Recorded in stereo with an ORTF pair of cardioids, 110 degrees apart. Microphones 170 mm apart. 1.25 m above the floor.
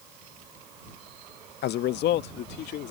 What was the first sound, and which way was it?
A man speaking, 65° left.